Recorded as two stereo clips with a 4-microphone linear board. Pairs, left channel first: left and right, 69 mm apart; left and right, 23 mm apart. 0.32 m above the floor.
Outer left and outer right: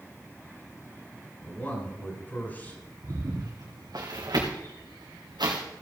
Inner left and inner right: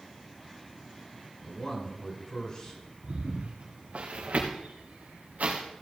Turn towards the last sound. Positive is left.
turn(degrees=-85)